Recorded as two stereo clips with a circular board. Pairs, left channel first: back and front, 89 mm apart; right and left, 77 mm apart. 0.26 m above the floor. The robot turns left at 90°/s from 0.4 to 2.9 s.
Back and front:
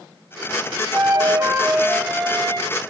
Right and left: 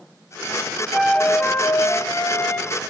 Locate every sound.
0.9 s a flute: 15° left, 0.7 m; by 2.8 s 150° right, 0.7 m